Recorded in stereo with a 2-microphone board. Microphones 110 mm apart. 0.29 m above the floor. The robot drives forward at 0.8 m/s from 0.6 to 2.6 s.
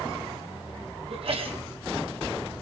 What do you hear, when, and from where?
1.1 s a sneeze: 60° right (ahead or behind), 2 m